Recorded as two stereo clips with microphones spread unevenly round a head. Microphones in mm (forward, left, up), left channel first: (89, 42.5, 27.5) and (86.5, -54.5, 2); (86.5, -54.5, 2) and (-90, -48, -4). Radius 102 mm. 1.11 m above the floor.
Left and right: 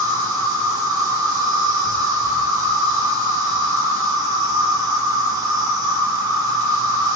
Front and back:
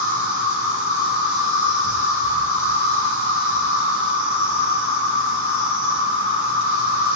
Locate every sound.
0.0 s an insect: 50° right, 2.5 m